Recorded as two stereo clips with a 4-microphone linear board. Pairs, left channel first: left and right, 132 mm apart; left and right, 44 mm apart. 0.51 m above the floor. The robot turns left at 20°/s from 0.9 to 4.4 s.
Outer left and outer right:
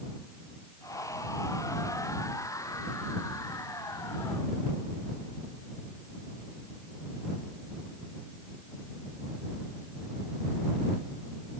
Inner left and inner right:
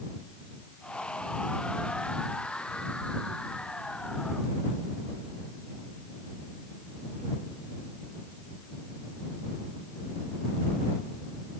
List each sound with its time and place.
Only background noise.